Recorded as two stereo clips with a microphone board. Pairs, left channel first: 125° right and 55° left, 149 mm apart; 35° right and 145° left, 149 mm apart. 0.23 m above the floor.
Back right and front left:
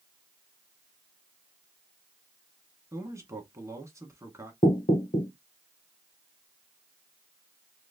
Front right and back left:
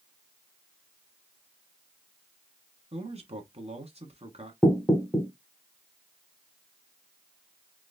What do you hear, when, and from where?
2.9 s a man speaking: 120° left, 1.4 m
4.6 s knocking: 115° right, 1.5 m